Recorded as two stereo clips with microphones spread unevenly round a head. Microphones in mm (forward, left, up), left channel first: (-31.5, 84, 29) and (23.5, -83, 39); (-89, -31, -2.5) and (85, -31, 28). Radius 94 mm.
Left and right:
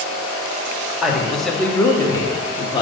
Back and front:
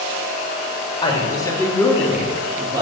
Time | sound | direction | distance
1.0 | a man speaking | 155° right | 1.0 m